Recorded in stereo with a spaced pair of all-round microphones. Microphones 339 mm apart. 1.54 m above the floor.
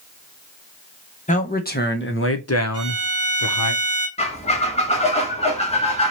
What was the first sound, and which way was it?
A man speaking, 20° left (ahead or behind).